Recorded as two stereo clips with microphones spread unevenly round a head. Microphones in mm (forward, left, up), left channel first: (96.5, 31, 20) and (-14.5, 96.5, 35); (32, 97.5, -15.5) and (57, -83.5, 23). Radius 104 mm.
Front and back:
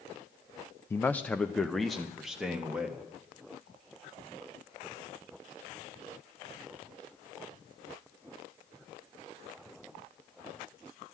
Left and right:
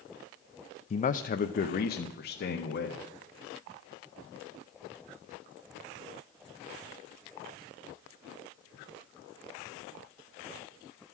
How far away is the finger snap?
I don't hear a finger snap.